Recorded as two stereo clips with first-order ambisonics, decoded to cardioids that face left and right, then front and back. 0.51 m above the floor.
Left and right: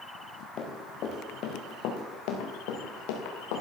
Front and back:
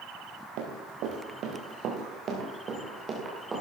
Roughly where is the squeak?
I don't hear a squeak.